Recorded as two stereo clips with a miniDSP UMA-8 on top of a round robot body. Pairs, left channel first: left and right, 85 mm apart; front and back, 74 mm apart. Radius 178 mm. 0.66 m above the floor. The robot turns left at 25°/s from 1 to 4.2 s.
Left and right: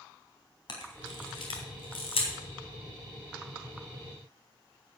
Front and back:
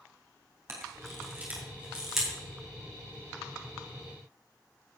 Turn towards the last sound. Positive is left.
turn(degrees=45)